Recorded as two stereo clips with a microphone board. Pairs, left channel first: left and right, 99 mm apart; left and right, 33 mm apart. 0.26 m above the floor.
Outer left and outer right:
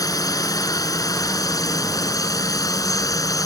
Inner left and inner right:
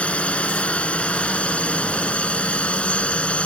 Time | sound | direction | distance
0.0 | a drone | 35° left (ahead or behind) | ?